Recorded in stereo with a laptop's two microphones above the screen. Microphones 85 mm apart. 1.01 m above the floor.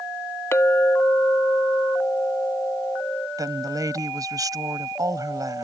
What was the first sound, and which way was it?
A clink, 30° left (ahead or behind).